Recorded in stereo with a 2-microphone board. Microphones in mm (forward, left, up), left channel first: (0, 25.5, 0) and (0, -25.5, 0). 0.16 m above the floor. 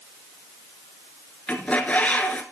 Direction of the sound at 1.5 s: 25° left (ahead or behind).